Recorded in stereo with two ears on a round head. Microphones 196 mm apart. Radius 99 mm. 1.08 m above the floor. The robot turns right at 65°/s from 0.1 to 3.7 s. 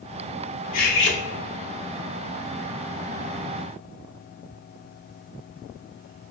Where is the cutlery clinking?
40° left, 0.6 m; by 1.2 s 70° left, 0.6 m.